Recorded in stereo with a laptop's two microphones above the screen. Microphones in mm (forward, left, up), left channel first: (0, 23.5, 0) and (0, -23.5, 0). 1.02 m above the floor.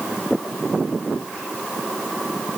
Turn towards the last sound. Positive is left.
No sound to turn to.